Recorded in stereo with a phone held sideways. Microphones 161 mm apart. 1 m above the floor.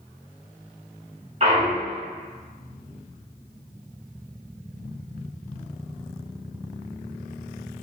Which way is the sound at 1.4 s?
40° right (ahead or behind).